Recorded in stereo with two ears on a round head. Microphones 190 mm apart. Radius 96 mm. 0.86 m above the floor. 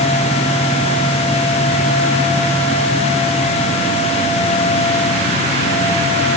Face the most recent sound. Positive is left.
No sound to turn to.